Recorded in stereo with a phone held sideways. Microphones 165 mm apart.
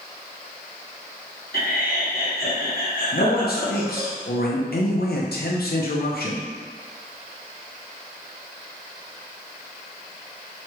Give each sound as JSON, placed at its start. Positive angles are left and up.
{"t": 1.5, "sound": "laughter", "side_deg": 65, "distance_m": 1.2}
{"t": 3.1, "sound": "a man speaking", "side_deg": 70, "distance_m": 0.6}